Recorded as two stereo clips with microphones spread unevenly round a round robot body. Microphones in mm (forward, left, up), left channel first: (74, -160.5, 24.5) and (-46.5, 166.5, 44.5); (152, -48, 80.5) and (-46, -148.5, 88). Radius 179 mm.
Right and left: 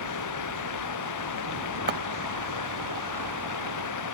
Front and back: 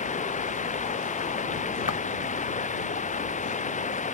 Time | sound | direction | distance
0.0 | running water | 30° right | ?
1.9 | footsteps | 60° left | ?